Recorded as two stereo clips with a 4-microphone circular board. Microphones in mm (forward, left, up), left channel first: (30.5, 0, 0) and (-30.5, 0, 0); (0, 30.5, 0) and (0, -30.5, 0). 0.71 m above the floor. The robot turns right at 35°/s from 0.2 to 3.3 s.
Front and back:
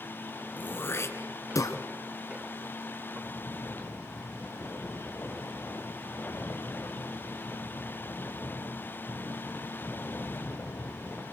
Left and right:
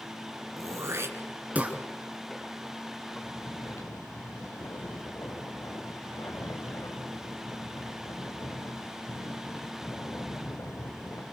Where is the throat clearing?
65° right, 1.8 m; by 1.8 s 20° right, 1.8 m.